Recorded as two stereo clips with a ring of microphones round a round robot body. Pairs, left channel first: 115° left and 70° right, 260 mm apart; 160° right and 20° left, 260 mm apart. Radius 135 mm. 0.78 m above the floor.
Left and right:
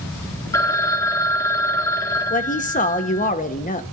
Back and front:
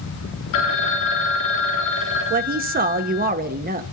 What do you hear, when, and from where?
0.5 s a phone ringing: 170° right, 1.1 m
2.3 s a woman speaking: 65° left, 1.2 m